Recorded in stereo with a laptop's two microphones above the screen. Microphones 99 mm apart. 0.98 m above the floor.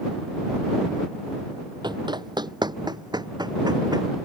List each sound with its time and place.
1.8 s running footsteps: 50° right (ahead or behind); by 4.1 s 45° right (ahead or behind)